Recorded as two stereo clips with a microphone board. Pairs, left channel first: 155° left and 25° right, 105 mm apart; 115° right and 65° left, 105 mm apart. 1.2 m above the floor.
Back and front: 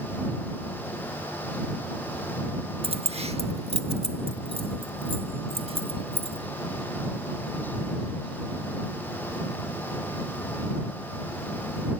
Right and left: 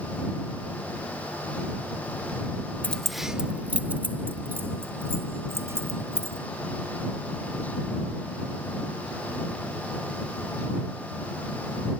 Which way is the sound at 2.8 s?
40° right.